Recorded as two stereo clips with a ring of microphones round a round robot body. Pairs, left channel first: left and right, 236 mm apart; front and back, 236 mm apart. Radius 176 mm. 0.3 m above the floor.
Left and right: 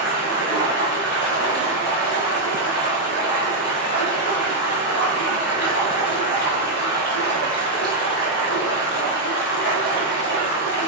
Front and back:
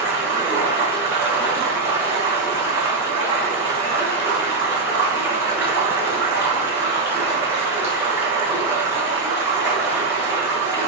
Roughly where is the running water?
Left.